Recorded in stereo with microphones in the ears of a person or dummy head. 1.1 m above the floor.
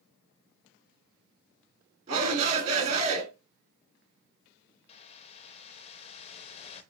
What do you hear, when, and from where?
2.1 s a shout: 40° right (ahead or behind), 2.5 m
4.9 s a whoosh: 35° left (ahead or behind), 0.6 m